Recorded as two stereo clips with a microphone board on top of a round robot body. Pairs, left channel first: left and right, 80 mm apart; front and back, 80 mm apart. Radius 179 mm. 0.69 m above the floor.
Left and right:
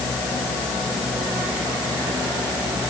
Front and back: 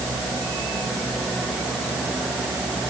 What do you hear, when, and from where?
Only background noise.